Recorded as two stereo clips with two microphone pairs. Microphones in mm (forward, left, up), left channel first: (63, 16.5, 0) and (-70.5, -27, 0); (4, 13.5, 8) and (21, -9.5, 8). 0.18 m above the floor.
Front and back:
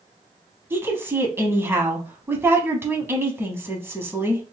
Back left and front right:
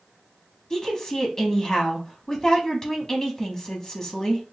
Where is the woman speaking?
155° left, 1.0 m.